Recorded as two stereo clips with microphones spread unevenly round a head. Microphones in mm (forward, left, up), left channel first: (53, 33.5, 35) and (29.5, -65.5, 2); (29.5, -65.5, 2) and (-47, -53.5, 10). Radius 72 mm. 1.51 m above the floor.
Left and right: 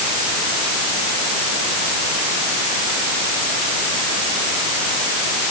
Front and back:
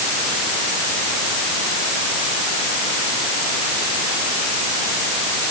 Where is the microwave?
I don't hear a microwave.